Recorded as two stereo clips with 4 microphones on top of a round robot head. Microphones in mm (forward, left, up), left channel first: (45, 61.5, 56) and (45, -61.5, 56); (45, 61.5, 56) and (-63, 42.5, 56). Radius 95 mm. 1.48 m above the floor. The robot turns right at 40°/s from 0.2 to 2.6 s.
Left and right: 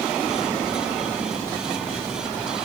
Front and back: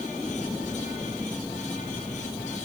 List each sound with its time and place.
Only background noise.